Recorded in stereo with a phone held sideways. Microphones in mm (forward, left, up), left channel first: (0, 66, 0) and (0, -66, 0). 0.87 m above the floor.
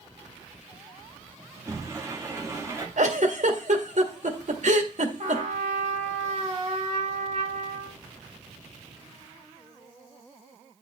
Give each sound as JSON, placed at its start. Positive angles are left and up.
{"t": 1.6, "sound": "a sliding door", "side_deg": -20, "distance_m": 1.9}
{"t": 3.0, "sound": "a giggle", "side_deg": -65, "distance_m": 1.6}
{"t": 5.2, "sound": "a trumpet", "side_deg": -55, "distance_m": 2.0}